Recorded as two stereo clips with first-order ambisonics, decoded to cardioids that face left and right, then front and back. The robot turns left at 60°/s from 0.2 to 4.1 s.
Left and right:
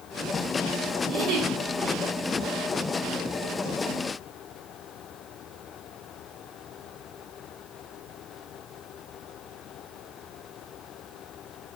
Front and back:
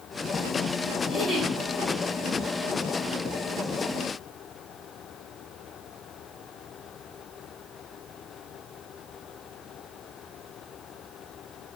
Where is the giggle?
85° right, 1.8 m; by 1.5 s 110° right, 1.8 m.